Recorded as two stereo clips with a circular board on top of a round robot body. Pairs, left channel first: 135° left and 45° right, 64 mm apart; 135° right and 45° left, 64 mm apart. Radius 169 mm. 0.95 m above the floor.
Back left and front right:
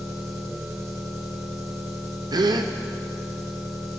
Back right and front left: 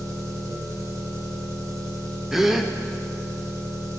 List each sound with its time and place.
0.0 s an engine running: 10° left, 2 m
2.3 s a gasp: 40° right, 0.6 m